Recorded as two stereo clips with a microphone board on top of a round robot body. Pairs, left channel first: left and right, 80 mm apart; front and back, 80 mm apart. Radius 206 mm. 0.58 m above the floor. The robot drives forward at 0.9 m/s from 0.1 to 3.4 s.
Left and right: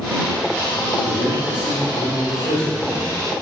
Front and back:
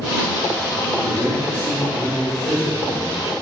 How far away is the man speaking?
About 1.7 m.